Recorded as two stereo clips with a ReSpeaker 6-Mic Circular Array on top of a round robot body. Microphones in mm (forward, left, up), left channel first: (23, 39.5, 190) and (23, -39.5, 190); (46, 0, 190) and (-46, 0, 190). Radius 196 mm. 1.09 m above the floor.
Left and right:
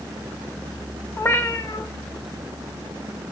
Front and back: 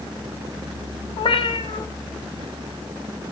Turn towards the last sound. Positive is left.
turn(degrees=30)